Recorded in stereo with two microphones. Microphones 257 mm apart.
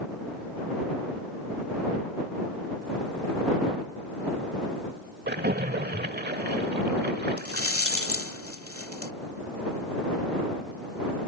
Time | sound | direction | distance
5.3 | a splash | 45° right (ahead or behind) | ?
7.4 | a rattle | 65° left (ahead or behind) | ?